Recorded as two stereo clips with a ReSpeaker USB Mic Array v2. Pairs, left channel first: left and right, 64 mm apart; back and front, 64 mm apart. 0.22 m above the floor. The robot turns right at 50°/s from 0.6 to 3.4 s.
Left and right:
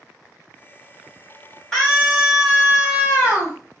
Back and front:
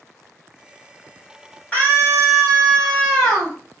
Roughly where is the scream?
Behind.